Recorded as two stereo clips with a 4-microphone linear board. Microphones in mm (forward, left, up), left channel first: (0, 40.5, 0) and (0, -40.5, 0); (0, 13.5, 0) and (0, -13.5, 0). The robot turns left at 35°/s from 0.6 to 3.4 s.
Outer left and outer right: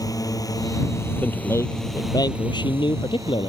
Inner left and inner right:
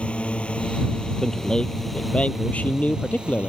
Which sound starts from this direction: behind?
A man speaking, at 1.2 s.